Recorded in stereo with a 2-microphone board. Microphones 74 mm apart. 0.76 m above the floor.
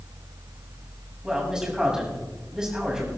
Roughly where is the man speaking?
Centre.